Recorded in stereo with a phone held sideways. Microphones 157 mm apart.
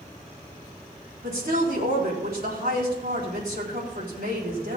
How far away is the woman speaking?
About 4 m.